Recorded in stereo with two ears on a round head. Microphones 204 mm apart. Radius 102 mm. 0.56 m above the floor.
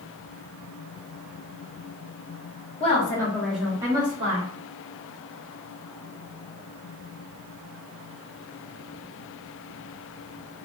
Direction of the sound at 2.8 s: 25° left (ahead or behind).